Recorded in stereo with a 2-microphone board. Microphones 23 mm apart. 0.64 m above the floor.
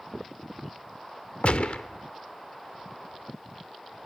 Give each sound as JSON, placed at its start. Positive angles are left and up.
{"t": 1.4, "sound": "a gunshot", "side_deg": 75, "distance_m": 0.9}